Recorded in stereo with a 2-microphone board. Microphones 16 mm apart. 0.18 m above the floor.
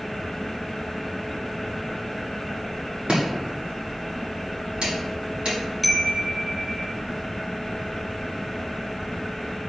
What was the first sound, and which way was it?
Chopping, 60° right (ahead or behind).